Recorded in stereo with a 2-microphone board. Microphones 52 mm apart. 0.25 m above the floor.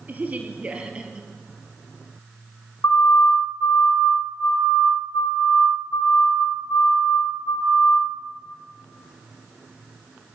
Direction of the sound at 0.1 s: 35° right (ahead or behind).